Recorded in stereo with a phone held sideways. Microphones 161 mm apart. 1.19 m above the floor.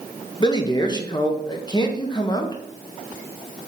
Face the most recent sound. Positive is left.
turn(degrees=25)  # may be behind; listen again after turning